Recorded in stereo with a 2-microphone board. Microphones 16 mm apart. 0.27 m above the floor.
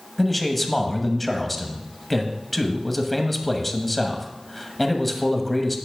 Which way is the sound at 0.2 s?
5° left (ahead or behind).